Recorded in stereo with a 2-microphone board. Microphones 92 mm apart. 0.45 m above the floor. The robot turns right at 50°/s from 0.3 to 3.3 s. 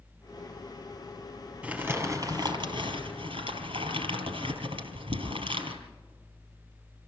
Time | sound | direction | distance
1.6 | crumpling | 170° right | 3 m